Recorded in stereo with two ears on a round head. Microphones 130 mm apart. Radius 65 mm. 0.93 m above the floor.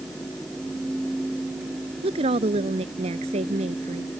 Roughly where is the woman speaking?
Right.